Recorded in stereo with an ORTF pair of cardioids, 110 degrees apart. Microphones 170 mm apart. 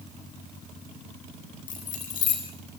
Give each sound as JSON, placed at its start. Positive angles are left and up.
{"t": 1.7, "sound": "keys jangling", "azimuth_deg": 55, "distance_m": 10.0}